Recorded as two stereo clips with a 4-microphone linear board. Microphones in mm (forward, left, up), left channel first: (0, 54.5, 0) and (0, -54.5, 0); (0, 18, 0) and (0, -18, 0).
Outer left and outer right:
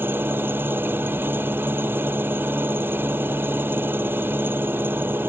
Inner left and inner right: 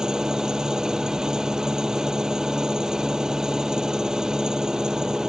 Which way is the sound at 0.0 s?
20° right (ahead or behind).